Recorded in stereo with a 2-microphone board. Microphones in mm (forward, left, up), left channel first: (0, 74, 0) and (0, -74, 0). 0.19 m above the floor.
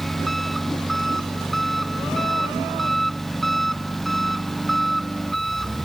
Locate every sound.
0.0 s an engine running: centre (ahead or behind)